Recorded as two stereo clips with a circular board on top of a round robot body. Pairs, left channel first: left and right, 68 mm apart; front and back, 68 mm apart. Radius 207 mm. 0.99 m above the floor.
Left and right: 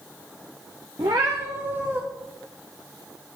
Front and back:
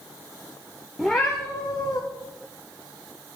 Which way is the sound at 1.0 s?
105° right.